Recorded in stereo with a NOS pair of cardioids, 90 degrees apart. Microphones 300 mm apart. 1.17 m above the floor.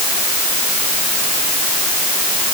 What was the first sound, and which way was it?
Only background noise.